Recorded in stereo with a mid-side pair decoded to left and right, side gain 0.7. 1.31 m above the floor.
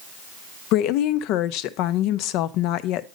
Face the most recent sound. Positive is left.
turn(degrees=65)